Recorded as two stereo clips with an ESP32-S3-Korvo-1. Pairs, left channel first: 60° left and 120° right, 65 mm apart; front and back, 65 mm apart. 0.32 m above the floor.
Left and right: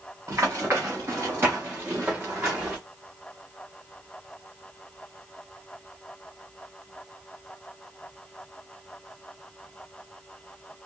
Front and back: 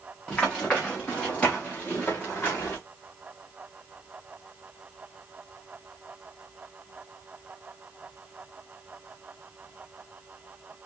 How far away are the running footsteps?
About 3.5 m.